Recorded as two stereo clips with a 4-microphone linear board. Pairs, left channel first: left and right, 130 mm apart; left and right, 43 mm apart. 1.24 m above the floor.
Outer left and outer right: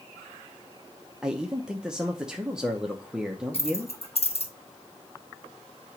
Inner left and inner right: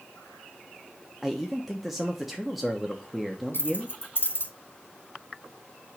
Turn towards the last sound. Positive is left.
turn(degrees=50)  # may be behind; listen again after turning